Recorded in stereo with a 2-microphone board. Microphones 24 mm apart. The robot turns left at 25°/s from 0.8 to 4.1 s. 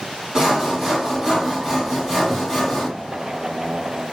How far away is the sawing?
About 1.3 m.